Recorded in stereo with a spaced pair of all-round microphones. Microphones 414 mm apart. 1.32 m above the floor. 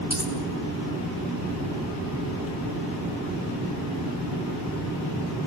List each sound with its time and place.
0.1 s a dropped coin: 60° left (ahead or behind), 4 m